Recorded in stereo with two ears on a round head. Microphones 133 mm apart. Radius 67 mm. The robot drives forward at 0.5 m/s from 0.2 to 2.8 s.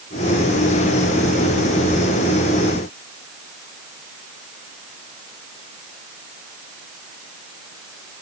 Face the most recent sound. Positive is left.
No sound to turn to.